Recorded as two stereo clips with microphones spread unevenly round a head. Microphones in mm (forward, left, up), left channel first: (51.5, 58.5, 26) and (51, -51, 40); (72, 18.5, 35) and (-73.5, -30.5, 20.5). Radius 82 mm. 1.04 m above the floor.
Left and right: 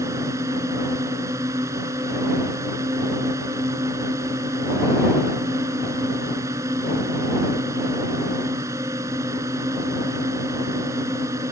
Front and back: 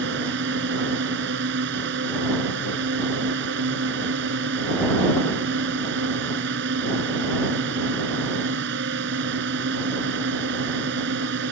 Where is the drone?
160° right.